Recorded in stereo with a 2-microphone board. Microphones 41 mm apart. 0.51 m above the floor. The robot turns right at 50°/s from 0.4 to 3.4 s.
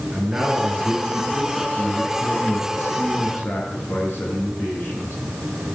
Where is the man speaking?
35° right, 6.5 m; by 5.2 s 115° left, 6.5 m.